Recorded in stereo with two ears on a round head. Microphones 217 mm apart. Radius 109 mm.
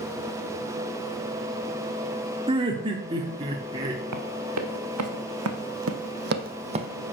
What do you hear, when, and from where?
2.5 s laughter: 20° right (ahead or behind), 0.9 m; by 4.0 s 15° right (ahead or behind), 1.1 m
4.1 s running footsteps: 80° right, 2.5 m; by 6.9 s 20° right (ahead or behind), 0.9 m